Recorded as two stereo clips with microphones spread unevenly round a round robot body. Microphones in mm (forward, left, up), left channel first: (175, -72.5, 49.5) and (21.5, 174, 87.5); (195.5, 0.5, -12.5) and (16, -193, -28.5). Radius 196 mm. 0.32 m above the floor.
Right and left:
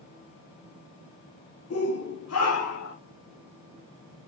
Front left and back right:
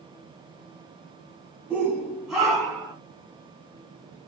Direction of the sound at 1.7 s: 50° right.